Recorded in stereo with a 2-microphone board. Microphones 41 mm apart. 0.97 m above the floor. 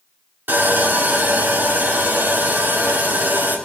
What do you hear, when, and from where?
0.5 s sawing: 65° right (ahead or behind), 2.5 m